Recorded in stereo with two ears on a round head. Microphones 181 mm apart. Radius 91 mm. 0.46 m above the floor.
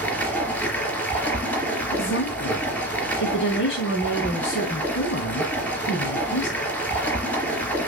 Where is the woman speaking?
65° left (ahead or behind), 3.5 m.